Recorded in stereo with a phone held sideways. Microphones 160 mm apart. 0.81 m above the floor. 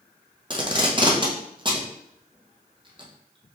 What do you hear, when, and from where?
0.5 s tape being pulled: 30° right (ahead or behind), 0.7 m